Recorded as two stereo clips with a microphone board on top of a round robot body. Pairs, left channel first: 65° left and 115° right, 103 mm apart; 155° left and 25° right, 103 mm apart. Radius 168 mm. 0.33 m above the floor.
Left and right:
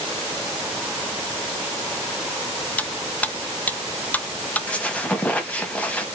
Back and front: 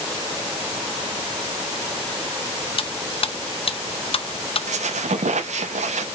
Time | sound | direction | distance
2.8 | cutlery clinking | 140° left | 0.7 m
4.7 | a squeak | 10° right | 0.7 m